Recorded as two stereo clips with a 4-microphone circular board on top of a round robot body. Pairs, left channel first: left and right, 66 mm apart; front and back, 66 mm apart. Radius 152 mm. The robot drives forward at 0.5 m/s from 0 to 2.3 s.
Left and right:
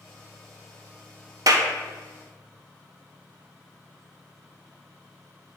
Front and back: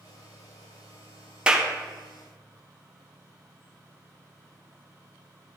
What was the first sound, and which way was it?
A clap, 105° right.